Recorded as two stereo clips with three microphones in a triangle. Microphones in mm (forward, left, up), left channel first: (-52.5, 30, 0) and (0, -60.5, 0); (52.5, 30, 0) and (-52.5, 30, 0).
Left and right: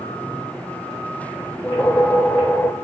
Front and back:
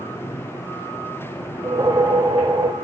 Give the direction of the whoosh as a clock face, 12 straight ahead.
6 o'clock.